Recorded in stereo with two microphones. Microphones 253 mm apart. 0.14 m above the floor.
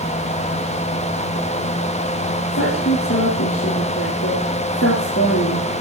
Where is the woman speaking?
55° left (ahead or behind), 4 m.